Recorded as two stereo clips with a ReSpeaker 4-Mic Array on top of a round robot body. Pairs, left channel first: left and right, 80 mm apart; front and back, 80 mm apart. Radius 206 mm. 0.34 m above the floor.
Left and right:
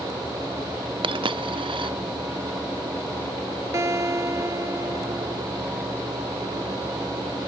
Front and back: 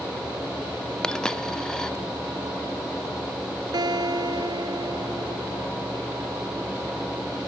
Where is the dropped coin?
80° right.